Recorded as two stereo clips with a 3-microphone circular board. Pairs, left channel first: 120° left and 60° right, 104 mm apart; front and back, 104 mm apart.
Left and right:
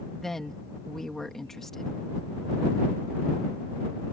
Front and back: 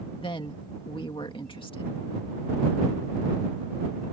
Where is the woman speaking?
35° left.